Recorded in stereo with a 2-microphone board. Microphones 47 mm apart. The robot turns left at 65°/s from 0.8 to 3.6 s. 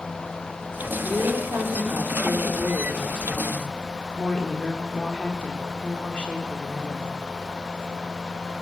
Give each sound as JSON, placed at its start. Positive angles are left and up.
{"t": 1.0, "sound": "a woman speaking", "azimuth_deg": -35, "distance_m": 4.5}